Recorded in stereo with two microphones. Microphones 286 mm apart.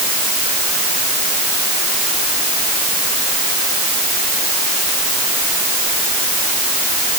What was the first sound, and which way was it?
Only background noise.